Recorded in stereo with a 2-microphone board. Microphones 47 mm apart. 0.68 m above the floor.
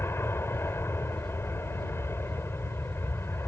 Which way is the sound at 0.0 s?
60° left (ahead or behind).